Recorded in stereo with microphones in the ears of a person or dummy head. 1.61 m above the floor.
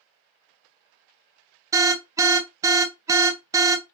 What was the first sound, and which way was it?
An alarm, 25° right (ahead or behind).